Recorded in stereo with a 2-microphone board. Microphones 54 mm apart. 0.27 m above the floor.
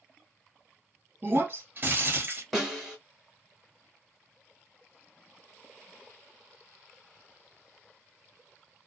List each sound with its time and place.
1.2 s breaking glass: 45° right (ahead or behind), 1.1 m
2.5 s a snare drum: 5° right (ahead or behind), 1.5 m